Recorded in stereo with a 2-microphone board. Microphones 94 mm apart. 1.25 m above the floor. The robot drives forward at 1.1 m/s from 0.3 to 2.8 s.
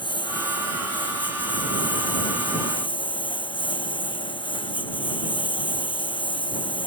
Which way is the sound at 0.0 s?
55° left (ahead or behind).